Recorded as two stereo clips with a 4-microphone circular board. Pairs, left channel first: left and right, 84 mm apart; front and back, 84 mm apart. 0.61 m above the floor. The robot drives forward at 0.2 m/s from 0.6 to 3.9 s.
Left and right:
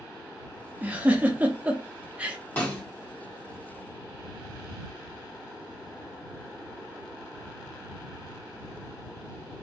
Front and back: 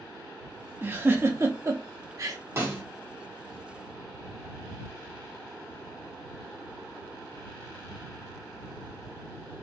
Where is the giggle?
145° right, 0.7 m; by 2.4 s 160° right, 0.9 m.